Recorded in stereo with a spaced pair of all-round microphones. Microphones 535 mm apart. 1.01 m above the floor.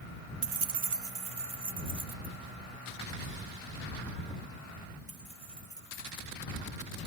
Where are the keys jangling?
55° right (ahead or behind); by 6.4 s 90° right.